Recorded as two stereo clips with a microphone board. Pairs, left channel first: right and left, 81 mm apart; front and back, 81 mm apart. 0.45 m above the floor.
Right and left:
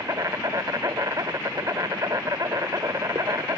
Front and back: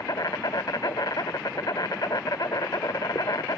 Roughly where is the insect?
Ahead left.